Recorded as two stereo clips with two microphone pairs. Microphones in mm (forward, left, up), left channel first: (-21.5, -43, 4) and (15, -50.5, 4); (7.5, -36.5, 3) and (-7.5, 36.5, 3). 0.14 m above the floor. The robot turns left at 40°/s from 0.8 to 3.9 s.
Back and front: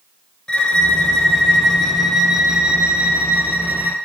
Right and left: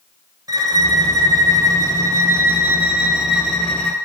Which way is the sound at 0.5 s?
115° left.